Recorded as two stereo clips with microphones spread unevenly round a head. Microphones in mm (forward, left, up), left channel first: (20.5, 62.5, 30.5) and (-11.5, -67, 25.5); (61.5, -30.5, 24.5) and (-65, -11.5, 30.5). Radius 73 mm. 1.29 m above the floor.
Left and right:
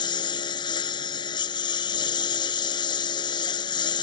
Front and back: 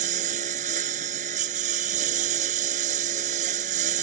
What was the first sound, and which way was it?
A lawn mower, 135° left.